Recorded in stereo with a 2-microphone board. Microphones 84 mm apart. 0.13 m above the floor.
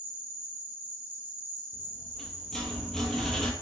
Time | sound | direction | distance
0.0 | an insect | 25° right (ahead or behind) | 2.5 m
1.7 | a rattle | 5° left (ahead or behind) | 0.7 m